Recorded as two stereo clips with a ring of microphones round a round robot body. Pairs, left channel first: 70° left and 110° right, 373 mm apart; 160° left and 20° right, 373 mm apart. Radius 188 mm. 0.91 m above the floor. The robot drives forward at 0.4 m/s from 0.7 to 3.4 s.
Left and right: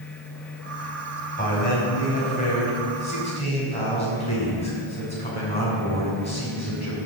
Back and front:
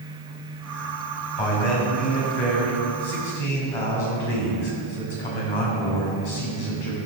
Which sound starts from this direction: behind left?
A man speaking, at 1.4 s.